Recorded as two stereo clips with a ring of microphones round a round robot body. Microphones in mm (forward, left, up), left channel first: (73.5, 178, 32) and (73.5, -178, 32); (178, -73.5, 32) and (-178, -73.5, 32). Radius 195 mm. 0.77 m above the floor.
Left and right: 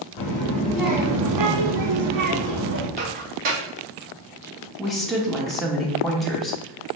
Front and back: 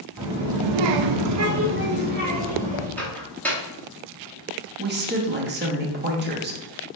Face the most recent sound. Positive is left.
turn(degrees=180)